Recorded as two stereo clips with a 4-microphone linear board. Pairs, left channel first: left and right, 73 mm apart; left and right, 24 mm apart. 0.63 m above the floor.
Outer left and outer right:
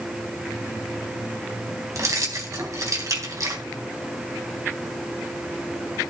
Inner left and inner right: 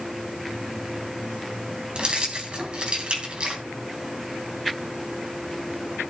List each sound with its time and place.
1.9 s keys jangling: 50° right (ahead or behind), 3.5 m